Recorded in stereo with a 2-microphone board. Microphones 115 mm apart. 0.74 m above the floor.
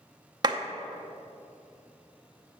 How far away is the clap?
About 0.7 m.